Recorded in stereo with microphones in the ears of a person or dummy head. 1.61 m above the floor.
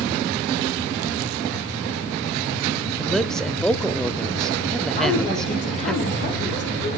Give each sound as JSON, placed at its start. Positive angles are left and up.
{"t": 3.0, "sound": "a man speaking", "side_deg": 0, "distance_m": 0.6}
{"t": 5.0, "sound": "a woman speaking", "side_deg": 40, "distance_m": 9.0}